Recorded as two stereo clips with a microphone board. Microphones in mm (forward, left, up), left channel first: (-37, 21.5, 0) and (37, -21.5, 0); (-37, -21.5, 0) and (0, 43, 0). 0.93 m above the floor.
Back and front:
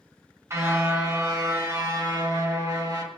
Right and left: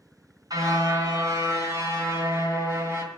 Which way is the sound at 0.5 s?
25° left.